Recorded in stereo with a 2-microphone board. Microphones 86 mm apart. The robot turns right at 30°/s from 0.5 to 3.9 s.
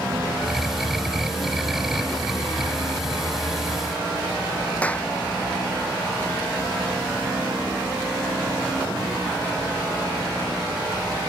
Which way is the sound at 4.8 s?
15° left (ahead or behind).